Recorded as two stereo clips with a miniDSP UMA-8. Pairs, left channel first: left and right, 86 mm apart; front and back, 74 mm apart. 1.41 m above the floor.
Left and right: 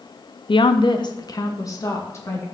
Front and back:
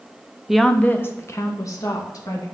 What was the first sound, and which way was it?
A woman speaking, 95° left.